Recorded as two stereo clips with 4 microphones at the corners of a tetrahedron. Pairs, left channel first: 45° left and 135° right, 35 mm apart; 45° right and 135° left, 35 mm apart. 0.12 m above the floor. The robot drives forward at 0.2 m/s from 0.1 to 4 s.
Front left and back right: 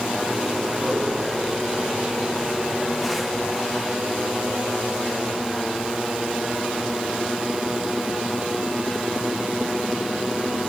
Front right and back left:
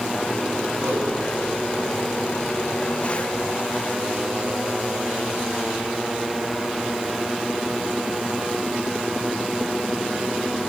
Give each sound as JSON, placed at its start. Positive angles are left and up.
{"t": 0.8, "sound": "a whoosh", "azimuth_deg": 150, "distance_m": 8.5}